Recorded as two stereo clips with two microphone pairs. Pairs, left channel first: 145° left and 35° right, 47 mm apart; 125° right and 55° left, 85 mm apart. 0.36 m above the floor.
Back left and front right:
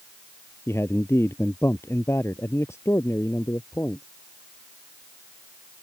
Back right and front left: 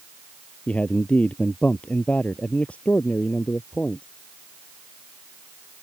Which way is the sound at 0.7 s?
160° left.